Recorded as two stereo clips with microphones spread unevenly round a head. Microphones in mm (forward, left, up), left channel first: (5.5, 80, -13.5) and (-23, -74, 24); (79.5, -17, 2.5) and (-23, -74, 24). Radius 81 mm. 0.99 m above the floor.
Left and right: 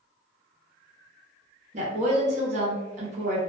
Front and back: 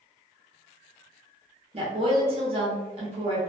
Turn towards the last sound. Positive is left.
turn(degrees=-140)